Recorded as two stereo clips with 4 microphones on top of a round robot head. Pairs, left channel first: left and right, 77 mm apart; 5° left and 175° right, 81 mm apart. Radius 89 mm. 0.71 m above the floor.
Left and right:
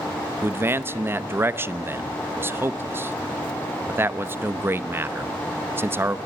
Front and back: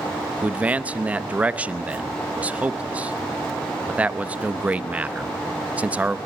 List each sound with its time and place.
0.4 s a man speaking: 115° right, 0.9 m